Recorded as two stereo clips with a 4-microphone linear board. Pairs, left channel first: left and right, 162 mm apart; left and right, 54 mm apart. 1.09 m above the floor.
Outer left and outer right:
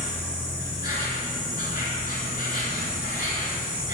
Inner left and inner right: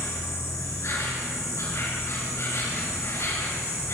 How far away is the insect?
About 4.5 m.